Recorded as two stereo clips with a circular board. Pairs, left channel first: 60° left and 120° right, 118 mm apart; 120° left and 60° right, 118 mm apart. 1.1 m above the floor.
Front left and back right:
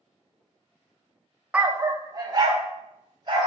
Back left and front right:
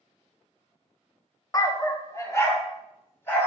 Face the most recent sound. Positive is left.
turn(degrees=-170)